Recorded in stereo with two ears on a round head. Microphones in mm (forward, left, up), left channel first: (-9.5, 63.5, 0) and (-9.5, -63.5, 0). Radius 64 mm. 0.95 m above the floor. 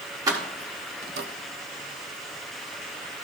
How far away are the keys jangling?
About 1.6 m.